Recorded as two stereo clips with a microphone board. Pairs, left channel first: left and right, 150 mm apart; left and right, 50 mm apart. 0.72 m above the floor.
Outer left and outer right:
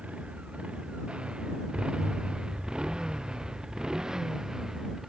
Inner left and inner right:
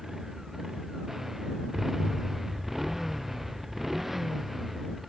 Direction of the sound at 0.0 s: 5° right (ahead or behind).